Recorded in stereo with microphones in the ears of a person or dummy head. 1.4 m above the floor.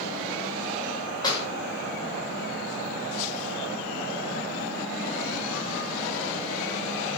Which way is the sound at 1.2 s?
20° left (ahead or behind).